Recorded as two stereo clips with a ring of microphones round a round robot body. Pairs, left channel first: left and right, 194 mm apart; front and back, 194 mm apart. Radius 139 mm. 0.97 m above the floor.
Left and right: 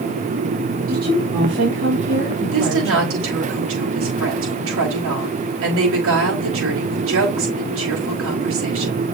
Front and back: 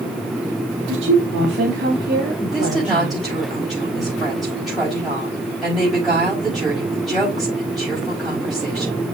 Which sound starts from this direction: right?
A woman speaking, at 2.5 s.